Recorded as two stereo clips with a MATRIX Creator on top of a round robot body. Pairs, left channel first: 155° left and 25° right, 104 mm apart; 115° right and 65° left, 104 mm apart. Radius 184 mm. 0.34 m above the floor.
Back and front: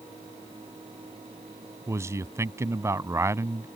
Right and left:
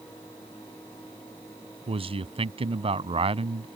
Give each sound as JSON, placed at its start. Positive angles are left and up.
{"t": 1.9, "sound": "a man speaking", "azimuth_deg": 40}